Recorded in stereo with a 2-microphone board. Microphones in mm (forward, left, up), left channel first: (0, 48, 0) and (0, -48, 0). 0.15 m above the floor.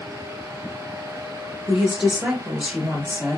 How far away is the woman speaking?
About 2 m.